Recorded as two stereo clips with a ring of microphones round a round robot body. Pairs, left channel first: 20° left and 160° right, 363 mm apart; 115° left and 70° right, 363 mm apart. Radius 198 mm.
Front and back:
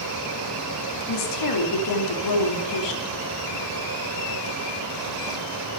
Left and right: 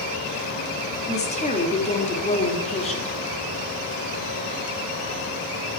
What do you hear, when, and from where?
1.1 s a woman speaking: 40° left, 2.5 m